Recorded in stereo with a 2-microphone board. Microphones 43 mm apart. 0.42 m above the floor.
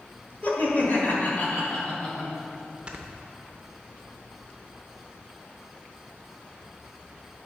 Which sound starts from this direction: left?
Laughter, at 0.4 s.